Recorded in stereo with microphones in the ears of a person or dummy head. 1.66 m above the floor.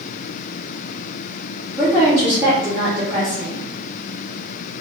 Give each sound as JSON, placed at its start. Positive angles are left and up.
{"t": 1.8, "sound": "a woman speaking", "side_deg": -15, "distance_m": 1.1}